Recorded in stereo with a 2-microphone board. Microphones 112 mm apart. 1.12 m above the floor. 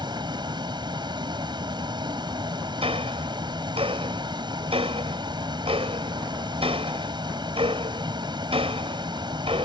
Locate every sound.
0.0 s a vehicle: 45° right (ahead or behind)
2.8 s ticking: 60° right (ahead or behind)